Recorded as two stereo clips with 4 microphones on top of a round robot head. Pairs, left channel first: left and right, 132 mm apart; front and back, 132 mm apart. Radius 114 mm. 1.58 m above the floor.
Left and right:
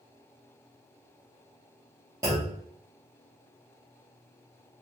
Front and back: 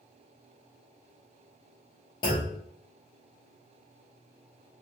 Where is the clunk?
35° right, 0.7 m.